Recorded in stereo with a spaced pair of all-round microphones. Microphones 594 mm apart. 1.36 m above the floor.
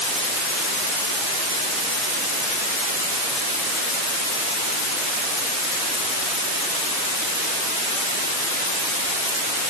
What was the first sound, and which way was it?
Only background noise.